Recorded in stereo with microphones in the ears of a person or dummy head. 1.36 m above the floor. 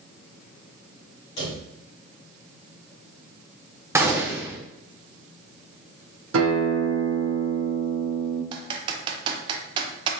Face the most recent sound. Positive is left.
turn(degrees=-25)  # may be behind; listen again after turning